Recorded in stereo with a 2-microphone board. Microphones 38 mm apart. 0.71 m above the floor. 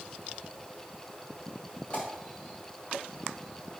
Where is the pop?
35° left (ahead or behind), 2.5 m.